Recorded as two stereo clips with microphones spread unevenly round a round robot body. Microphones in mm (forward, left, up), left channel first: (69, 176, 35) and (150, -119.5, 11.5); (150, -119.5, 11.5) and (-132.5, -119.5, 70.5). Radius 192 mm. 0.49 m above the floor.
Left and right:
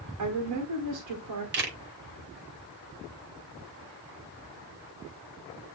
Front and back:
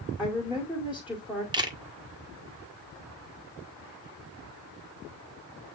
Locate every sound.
0.2 s a woman speaking: 85° right, 1.9 m
1.5 s a camera shutter: 100° right, 1.5 m